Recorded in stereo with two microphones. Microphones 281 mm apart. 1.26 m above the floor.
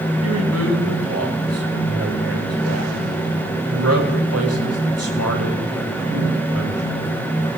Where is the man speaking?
65° right (ahead or behind), 7 m.